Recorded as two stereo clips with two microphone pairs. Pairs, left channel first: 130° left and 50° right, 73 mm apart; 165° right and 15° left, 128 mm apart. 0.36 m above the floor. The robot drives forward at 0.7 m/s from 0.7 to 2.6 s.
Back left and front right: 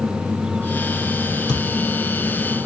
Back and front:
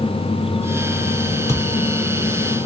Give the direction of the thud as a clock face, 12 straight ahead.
8 o'clock.